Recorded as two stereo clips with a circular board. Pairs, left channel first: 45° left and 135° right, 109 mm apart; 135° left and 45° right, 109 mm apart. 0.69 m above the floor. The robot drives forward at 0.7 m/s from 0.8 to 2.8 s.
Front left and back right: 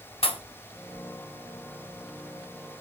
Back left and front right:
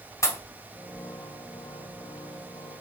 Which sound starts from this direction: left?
A pop, at 0.2 s.